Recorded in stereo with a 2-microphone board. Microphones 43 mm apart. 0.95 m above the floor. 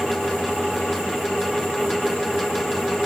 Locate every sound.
Only background noise.